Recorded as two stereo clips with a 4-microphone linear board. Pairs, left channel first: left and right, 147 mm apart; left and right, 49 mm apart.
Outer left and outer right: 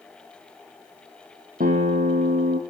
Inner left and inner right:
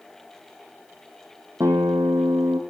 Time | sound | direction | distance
1.6 | a guitar | 80° right | 3.5 m